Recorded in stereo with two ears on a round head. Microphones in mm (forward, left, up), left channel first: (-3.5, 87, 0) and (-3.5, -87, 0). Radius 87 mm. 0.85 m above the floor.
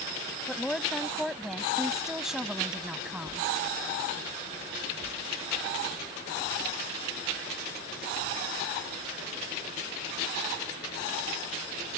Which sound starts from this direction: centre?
A woman speaking, at 0.5 s.